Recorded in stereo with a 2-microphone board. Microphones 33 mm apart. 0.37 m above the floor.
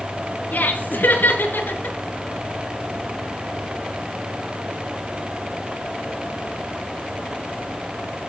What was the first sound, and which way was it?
Laughter, 65° left (ahead or behind).